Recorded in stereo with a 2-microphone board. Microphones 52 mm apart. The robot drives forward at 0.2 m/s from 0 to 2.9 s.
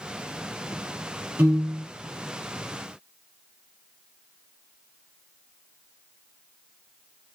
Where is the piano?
45° right (ahead or behind), 1.4 m.